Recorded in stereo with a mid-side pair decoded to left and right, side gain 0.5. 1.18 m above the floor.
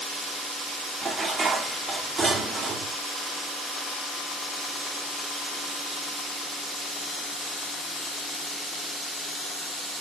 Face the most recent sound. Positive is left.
turn(degrees=-30)